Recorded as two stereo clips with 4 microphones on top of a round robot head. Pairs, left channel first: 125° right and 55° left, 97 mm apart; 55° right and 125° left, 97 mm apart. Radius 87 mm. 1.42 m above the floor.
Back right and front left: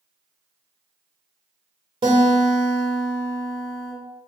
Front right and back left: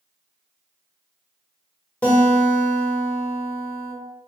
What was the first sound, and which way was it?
A guitar, 20° left.